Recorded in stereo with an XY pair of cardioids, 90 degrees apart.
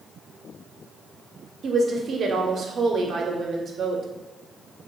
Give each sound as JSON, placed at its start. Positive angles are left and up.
{"t": 1.6, "sound": "a woman speaking", "azimuth_deg": -55, "distance_m": 0.5}